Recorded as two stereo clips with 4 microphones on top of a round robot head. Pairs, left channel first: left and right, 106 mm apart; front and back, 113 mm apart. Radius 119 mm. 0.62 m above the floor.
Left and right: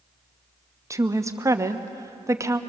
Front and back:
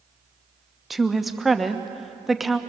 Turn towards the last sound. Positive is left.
turn(degrees=-95)